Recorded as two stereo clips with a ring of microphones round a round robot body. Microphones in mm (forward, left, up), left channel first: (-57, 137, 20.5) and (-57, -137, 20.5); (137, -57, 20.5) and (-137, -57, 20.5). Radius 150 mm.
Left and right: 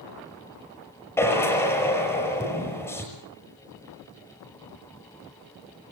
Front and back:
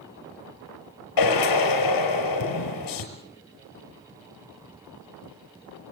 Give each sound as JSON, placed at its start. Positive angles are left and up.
{"t": 1.2, "sound": "a drill", "azimuth_deg": 5, "distance_m": 5.5}